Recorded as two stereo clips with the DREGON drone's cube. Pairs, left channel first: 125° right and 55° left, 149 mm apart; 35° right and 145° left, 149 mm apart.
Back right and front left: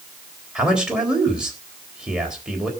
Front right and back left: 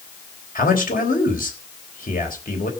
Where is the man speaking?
30° right, 3.5 m.